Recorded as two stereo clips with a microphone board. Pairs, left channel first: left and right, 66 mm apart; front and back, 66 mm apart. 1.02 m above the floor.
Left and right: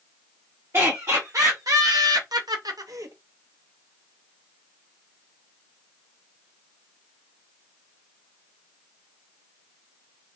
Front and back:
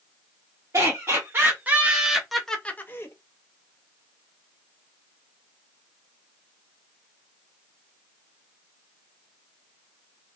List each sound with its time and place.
0.7 s laughter: 130° right, 1.2 m; by 3.1 s 50° right, 0.6 m